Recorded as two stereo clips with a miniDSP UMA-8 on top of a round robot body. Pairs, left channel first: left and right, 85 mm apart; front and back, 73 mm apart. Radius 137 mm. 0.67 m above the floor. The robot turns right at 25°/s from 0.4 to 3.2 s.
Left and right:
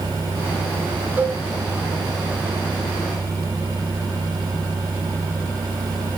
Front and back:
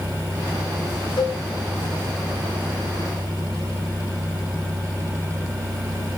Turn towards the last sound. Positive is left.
turn(degrees=30)